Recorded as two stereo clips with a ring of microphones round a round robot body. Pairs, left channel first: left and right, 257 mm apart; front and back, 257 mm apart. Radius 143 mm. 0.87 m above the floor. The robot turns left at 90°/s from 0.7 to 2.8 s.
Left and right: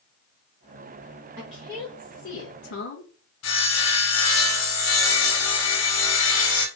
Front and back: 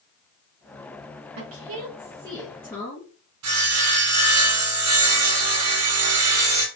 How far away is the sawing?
About 0.8 m.